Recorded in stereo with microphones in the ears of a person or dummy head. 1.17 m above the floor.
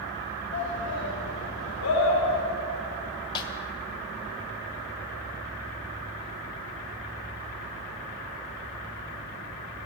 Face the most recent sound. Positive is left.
turn(degrees=25)  # may be behind; listen again after turning